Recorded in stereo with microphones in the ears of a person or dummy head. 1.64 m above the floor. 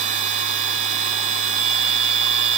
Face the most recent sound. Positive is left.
turn(degrees=-40)  # may be behind; listen again after turning